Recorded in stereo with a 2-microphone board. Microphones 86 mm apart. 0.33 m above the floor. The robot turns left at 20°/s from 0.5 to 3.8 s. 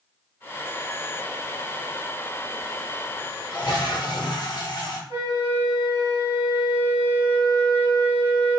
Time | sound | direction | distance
3.5 | a toilet flushing | 55° left (ahead or behind) | 0.8 m
5.1 | a flute | 35° right (ahead or behind) | 1.3 m